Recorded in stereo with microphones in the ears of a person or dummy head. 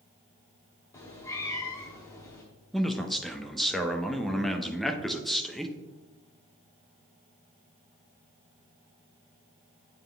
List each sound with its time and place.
0.9 s a cat meowing: 10° left (ahead or behind), 0.8 m
2.7 s a man speaking: 5° right (ahead or behind), 0.7 m